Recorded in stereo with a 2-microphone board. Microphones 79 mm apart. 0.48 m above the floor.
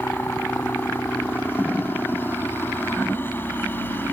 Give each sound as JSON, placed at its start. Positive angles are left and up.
{"t": 0.0, "sound": "a helicopter", "side_deg": 25}